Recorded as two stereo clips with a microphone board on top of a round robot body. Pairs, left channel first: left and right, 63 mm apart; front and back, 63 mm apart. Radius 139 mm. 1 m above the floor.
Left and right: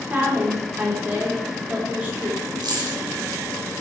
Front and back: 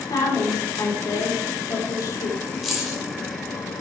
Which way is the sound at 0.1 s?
25° right.